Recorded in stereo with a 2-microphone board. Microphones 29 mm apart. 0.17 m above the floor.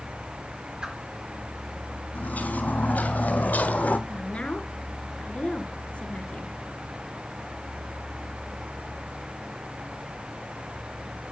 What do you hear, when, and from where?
0.8 s a whoosh: 25° right (ahead or behind), 1.9 m
2.1 s footsteps: 90° left, 3.5 m; by 4.0 s 85° left, 2 m
4.1 s a woman speaking: 50° left (ahead or behind), 2.0 m